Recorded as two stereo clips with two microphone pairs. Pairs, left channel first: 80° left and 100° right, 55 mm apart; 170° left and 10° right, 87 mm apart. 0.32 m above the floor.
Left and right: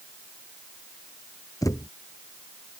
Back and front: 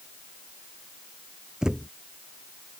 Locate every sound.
1.6 s a thud: 70° left